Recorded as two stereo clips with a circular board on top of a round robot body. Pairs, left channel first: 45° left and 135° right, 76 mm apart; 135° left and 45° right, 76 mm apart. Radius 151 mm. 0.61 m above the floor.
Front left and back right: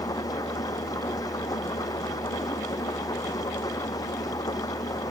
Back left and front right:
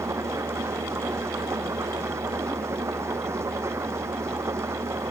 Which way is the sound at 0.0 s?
10° left.